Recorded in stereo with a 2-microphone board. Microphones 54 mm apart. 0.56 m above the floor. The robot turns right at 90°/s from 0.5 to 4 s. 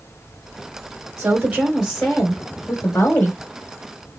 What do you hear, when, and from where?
1.2 s a woman speaking: 65° right, 3 m; by 3.4 s 135° left, 3 m